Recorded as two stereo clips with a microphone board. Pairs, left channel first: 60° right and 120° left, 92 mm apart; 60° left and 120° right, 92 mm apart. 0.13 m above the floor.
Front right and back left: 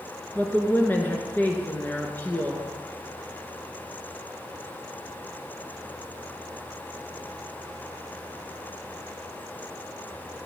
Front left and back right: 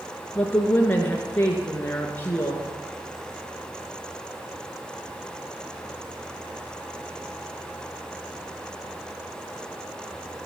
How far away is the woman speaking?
About 1.8 m.